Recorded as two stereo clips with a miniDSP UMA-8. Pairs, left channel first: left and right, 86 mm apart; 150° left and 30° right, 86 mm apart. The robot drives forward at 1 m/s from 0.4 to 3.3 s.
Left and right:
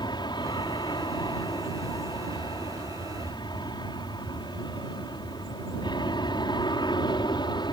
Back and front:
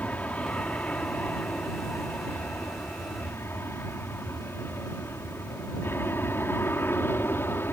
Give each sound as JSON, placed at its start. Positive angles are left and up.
{"t": 0.0, "sound": "an aircraft", "azimuth_deg": 80}